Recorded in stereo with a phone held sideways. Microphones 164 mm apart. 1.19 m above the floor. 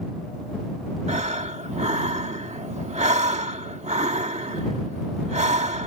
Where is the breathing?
45° right (ahead or behind).